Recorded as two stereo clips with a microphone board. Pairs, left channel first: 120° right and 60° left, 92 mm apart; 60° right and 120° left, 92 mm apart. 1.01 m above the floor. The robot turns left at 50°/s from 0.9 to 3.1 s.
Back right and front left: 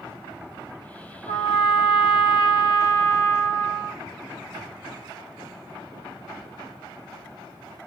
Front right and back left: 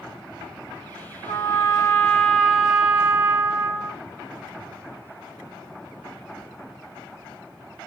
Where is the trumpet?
85° right, 1.3 m; by 4.0 s 175° right, 1.3 m.